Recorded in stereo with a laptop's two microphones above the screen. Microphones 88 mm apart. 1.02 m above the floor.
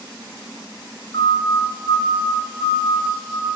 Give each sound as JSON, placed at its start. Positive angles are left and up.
{"t": 1.1, "sound": "a siren", "side_deg": 55, "distance_m": 8.5}